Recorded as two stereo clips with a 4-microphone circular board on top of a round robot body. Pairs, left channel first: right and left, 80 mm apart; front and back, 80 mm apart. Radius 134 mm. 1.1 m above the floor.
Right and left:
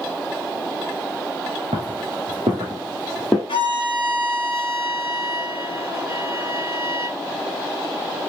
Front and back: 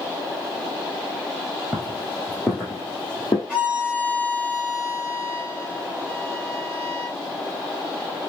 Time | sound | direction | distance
1.7 | footsteps | 105° left | 1.4 m
3.5 | a violin | 100° right | 1.0 m